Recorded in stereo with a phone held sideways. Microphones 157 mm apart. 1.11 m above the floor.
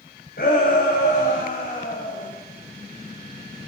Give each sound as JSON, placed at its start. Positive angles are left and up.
{"t": 0.4, "sound": "a shout", "side_deg": 70, "distance_m": 6.5}